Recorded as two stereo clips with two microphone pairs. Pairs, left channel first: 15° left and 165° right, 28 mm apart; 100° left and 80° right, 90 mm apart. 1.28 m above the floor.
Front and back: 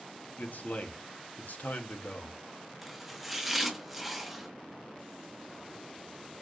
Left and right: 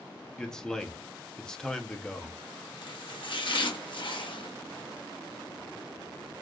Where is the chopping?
110° left, 0.9 m.